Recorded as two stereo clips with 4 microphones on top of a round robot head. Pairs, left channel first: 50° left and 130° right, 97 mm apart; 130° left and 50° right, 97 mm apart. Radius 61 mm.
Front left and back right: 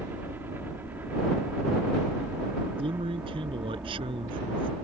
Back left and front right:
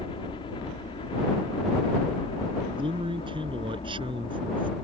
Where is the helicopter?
160° left.